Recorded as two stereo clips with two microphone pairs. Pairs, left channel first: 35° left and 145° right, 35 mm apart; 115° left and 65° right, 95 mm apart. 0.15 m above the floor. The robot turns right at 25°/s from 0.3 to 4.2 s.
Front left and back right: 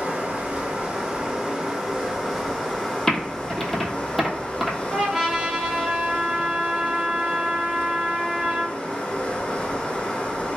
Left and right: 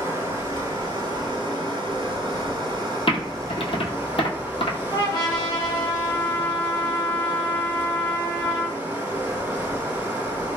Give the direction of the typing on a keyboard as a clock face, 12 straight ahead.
9 o'clock.